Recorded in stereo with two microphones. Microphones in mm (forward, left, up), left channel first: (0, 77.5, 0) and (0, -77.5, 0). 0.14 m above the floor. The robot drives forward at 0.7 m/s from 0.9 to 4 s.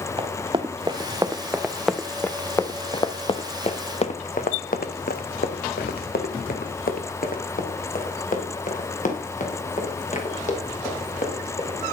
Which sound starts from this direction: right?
Running footsteps, at 0.2 s.